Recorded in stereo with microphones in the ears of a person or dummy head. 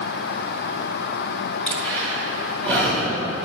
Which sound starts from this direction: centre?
Breathing, at 1.7 s.